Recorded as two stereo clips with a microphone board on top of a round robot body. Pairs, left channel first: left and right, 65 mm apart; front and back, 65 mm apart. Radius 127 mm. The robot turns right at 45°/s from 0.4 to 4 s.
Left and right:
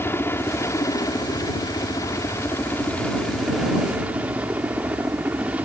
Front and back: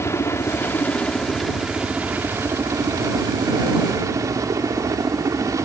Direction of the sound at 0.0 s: 40° left.